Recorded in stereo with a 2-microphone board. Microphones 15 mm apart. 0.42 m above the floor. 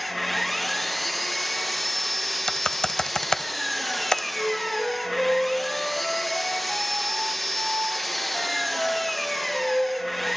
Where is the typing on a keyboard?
50° left (ahead or behind), 0.7 m.